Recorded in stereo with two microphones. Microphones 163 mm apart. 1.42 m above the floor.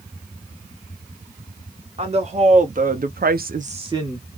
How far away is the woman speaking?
About 1.4 m.